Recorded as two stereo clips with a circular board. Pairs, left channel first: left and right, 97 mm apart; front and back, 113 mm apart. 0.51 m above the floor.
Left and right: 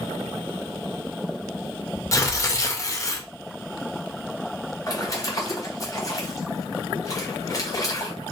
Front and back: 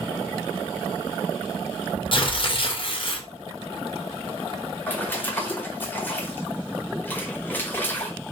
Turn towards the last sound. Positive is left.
turn(degrees=65)